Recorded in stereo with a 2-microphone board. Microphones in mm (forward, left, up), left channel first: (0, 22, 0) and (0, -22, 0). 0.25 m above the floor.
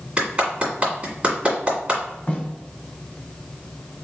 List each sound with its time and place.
0.2 s a clap: 30° right (ahead or behind), 1.9 m
2.3 s a snare drum: 30° left (ahead or behind), 1.6 m